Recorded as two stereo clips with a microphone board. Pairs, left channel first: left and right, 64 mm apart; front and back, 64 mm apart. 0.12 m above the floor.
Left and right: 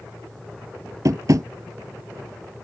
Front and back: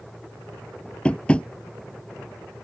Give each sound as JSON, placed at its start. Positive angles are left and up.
{"t": 1.1, "sound": "tapping", "azimuth_deg": -70}